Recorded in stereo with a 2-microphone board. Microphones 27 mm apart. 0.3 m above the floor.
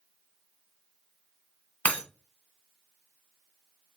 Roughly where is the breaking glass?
Left.